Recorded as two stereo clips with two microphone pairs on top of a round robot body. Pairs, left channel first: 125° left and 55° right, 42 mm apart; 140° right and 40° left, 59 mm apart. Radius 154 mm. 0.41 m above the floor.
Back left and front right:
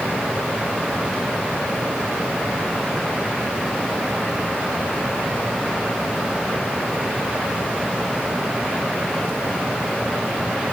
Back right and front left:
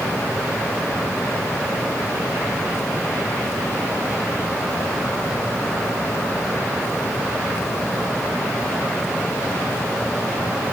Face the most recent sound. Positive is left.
No sound to turn to.